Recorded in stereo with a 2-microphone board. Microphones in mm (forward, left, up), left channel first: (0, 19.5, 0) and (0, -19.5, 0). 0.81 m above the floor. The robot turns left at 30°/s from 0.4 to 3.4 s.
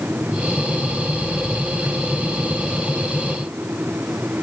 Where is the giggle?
No giggle in this recording.